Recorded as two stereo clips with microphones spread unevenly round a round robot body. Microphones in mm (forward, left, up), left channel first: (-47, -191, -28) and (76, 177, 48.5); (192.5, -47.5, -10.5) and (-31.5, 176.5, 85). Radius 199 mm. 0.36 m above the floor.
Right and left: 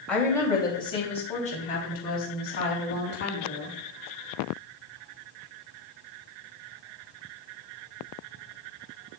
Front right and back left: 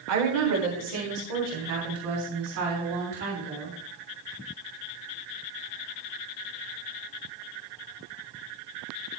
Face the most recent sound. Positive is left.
turn(degrees=-165)